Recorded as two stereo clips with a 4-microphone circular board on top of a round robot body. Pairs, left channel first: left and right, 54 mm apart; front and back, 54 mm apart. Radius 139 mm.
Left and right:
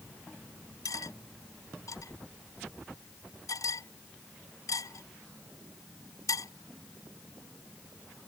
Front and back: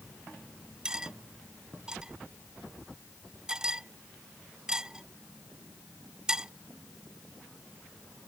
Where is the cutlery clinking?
105° left.